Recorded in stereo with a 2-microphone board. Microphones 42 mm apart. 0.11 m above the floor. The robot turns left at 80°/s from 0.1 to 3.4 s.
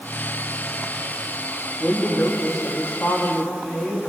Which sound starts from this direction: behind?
A woman speaking, at 1.8 s.